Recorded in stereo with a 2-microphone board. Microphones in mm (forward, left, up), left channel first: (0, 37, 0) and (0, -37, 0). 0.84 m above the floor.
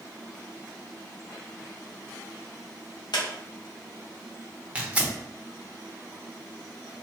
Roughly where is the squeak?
Left.